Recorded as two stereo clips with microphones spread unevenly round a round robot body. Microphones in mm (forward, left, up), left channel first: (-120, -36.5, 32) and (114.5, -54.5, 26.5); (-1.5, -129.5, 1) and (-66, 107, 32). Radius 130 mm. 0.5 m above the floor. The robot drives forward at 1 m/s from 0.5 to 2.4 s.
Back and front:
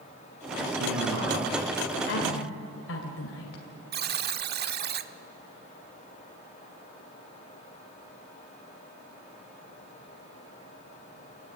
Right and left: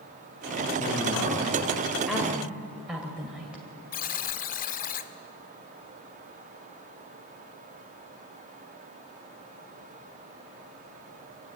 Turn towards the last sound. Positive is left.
turn(degrees=-35)